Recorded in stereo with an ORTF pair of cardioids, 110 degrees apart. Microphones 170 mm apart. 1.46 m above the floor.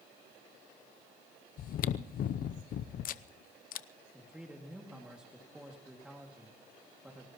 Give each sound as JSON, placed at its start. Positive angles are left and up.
{"t": 1.6, "sound": "chewing", "azimuth_deg": 55, "distance_m": 0.7}
{"t": 4.1, "sound": "a man speaking", "azimuth_deg": -5, "distance_m": 2.5}